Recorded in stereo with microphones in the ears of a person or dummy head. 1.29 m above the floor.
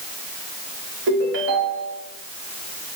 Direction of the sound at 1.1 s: 60° right (ahead or behind).